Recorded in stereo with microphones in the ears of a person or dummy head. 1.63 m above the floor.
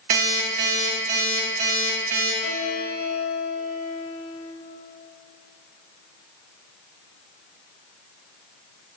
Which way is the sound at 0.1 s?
45° right (ahead or behind).